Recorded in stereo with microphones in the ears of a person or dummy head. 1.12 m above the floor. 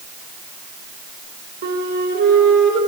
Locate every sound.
1.6 s a flute: 55° right (ahead or behind), 1.6 m